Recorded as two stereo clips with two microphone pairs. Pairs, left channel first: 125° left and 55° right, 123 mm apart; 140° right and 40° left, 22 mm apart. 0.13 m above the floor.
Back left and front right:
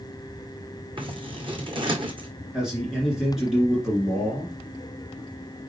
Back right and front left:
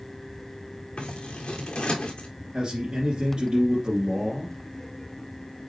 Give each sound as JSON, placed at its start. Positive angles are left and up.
{"t": 1.0, "sound": "scissors", "azimuth_deg": -100, "distance_m": 1.7}
{"t": 2.5, "sound": "a man speaking", "azimuth_deg": 30, "distance_m": 2.0}